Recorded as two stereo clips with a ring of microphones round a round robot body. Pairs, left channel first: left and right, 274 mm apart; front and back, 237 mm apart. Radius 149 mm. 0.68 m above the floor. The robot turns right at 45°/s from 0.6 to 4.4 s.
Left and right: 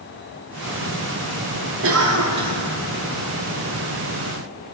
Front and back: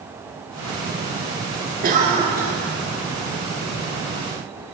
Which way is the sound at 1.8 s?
125° right.